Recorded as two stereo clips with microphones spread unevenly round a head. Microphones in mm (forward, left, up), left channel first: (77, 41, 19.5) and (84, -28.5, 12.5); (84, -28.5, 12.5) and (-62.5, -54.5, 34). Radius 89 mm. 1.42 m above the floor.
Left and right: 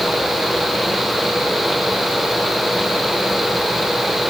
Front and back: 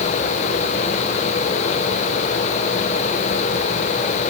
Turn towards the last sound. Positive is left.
No sound to turn to.